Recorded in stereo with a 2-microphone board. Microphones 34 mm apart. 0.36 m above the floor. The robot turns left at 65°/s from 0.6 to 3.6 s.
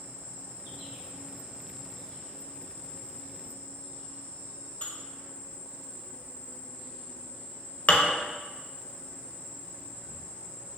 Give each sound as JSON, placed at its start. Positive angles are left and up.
{"t": 0.0, "sound": "an insect", "azimuth_deg": -95, "distance_m": 1.5}
{"t": 4.8, "sound": "dishes clattering", "side_deg": 50, "distance_m": 0.7}